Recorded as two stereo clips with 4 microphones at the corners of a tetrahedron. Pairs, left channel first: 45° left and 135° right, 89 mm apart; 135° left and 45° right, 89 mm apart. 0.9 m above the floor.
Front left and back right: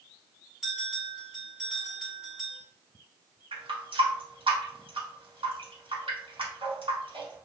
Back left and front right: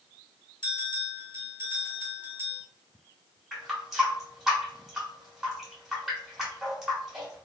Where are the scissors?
I don't hear scissors.